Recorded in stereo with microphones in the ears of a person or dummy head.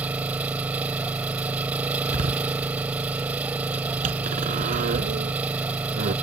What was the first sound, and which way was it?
An engine running, 5° right (ahead or behind).